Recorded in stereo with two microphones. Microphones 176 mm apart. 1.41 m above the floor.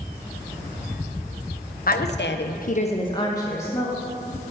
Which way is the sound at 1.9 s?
55° left (ahead or behind).